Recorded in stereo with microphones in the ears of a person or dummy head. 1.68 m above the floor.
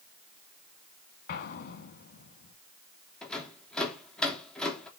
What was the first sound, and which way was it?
An explosion, 45° left (ahead or behind).